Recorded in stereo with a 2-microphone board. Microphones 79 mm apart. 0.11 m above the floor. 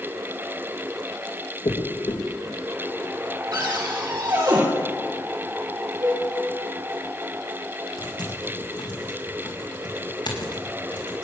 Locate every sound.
1.6 s a dropped coin: 70° left (ahead or behind), 3 m
3.5 s a cupboard door: 55° right (ahead or behind), 4 m
6.0 s a cowbell: 45° right (ahead or behind), 7.5 m
8.0 s typing on a keyboard: 70° left (ahead or behind), 3 m